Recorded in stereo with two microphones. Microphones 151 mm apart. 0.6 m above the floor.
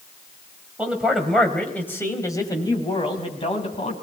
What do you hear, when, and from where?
0.8 s a man speaking: 10° right (ahead or behind), 4 m; by 3.9 s 45° left (ahead or behind), 5.5 m